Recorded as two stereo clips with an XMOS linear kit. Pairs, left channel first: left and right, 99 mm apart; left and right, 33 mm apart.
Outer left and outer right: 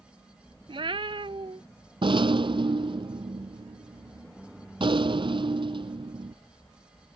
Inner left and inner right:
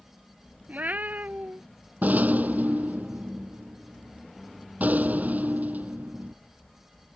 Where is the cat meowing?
60° right (ahead or behind).